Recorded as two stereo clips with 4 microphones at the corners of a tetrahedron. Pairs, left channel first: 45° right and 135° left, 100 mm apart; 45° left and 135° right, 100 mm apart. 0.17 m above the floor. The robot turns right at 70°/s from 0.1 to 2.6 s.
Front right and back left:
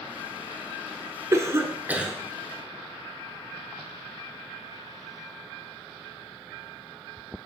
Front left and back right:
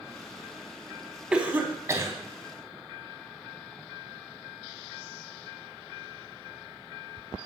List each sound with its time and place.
1.3 s a cough: 150° left, 1.4 m; by 2.1 s 150° right, 1.4 m